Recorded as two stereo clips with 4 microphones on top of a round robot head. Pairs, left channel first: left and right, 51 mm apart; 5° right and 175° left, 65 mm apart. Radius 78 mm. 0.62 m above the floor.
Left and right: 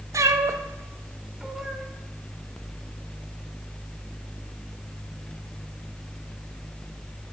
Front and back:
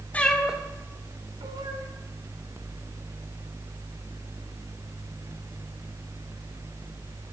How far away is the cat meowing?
About 0.7 m.